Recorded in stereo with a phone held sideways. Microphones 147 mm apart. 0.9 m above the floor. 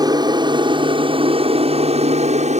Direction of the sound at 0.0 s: 30° right (ahead or behind).